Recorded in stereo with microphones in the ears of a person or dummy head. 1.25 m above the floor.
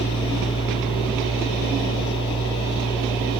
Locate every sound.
0.0 s a machine running: 25° left (ahead or behind)